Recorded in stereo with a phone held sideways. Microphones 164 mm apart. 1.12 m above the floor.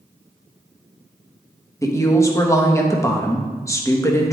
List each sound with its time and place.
1.8 s a woman speaking: 15° left (ahead or behind), 1.1 m